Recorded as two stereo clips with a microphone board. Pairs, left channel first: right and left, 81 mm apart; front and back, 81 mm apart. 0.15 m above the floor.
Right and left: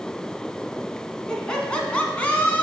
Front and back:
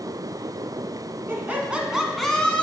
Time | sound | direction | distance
1.3 | laughter | 160° right | 1.2 m